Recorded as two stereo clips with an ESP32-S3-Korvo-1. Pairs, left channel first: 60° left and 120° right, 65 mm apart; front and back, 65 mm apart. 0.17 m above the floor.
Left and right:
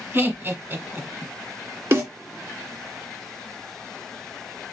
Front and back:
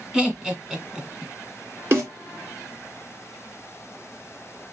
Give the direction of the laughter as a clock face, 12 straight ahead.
4 o'clock.